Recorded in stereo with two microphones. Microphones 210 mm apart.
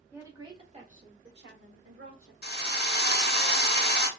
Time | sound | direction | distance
0.1 | a woman speaking | 10° right (ahead or behind) | 1.3 m
2.4 | a drill | 50° left (ahead or behind) | 0.8 m